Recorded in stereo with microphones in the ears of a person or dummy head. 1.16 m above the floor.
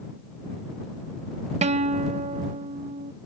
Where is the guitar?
30° right (ahead or behind).